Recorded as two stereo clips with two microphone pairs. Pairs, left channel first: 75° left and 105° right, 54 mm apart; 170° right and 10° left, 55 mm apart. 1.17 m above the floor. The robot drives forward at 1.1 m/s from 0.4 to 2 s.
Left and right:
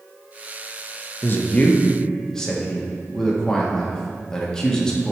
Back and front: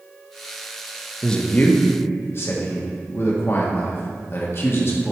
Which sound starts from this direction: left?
A man speaking, at 1.2 s.